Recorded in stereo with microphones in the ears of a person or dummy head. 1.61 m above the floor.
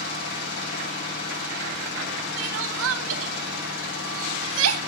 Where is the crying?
80° right, 2.5 m.